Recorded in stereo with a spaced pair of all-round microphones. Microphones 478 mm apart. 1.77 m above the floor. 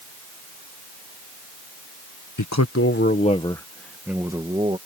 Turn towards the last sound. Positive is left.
turn(degrees=-15)  # may be behind; listen again after turning